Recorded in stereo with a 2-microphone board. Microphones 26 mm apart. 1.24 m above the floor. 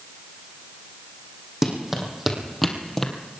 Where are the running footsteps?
15° right (ahead or behind), 3.5 m; by 3.1 s 20° left (ahead or behind), 1.9 m.